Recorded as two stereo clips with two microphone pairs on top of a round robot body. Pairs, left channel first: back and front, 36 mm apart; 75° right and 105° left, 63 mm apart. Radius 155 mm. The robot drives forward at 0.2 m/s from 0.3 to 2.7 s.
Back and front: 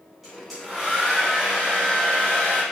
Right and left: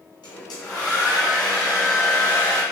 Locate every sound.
0.2 s a hair dryer: 80° right, 0.6 m; by 2.6 s 125° right, 0.7 m